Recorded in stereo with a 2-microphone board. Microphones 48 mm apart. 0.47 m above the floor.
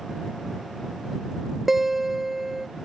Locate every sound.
1.7 s a guitar: 5° right (ahead or behind)